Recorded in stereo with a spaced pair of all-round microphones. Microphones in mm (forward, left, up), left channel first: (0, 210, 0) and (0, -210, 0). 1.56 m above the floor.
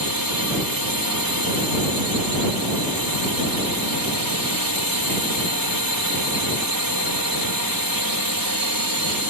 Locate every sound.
0.0 s a drone: 50° right (ahead or behind)